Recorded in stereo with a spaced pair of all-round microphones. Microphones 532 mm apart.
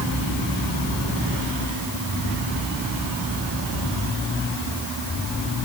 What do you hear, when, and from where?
Only background noise.